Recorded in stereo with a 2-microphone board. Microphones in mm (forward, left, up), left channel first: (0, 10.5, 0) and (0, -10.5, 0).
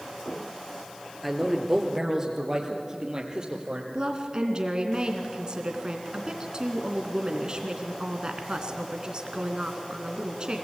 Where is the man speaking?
5° right (ahead or behind), 2.5 m; by 3.8 s 35° right (ahead or behind), 4 m.